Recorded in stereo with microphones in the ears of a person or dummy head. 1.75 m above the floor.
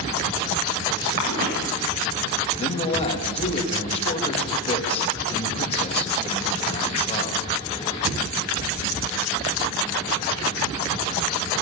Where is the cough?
50° right (ahead or behind), 9 m.